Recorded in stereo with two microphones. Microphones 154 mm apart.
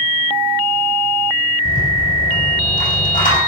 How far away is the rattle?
About 5 m.